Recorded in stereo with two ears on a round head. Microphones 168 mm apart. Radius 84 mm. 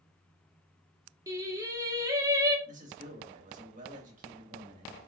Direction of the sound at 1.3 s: 20° right (ahead or behind).